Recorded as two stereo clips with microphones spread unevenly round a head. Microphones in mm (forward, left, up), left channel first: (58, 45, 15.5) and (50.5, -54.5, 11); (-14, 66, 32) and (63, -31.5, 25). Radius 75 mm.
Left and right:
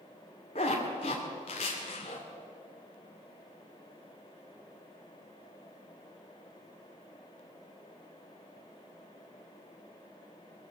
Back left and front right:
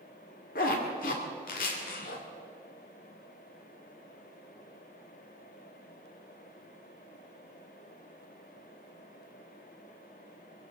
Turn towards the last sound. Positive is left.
turn(degrees=130)